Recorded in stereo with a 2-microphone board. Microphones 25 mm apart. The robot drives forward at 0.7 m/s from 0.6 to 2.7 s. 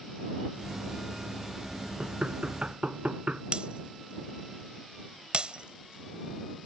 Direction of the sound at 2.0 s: 50° right (ahead or behind).